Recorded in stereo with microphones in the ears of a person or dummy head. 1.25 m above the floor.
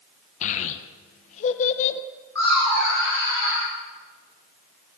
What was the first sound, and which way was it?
A child speaking, 45° left (ahead or behind).